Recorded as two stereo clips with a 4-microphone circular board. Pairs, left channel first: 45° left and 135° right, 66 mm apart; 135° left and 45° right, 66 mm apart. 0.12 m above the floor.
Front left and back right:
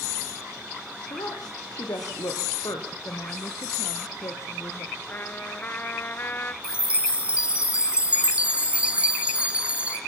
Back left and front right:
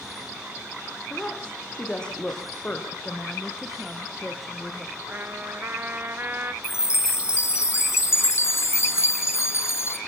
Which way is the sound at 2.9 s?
45° left.